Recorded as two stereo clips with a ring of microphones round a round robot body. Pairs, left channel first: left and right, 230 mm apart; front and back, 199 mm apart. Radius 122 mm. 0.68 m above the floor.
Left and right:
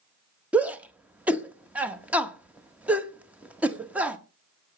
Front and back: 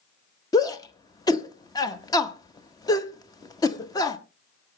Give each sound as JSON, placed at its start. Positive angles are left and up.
{"t": 0.5, "sound": "a shout", "azimuth_deg": -20, "distance_m": 0.9}